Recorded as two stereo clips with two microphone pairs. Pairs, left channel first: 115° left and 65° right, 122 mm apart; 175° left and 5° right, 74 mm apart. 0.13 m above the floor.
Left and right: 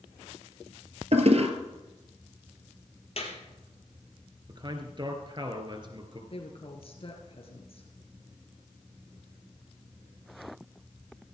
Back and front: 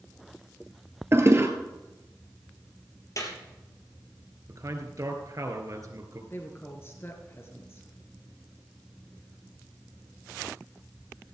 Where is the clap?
140° left, 3.5 m.